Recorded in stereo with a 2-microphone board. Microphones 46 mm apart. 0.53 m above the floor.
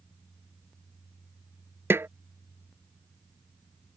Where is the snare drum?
65° right (ahead or behind).